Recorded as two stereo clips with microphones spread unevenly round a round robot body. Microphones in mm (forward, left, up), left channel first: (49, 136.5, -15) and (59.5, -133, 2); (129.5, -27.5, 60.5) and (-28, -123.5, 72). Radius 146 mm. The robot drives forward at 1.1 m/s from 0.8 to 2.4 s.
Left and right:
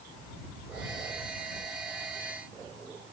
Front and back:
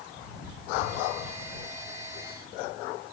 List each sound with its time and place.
Only background noise.